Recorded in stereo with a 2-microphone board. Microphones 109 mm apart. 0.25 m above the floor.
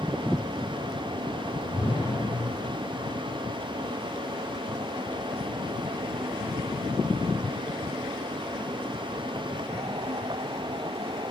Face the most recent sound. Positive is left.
turn(degrees=45)  # may be behind; listen again after turning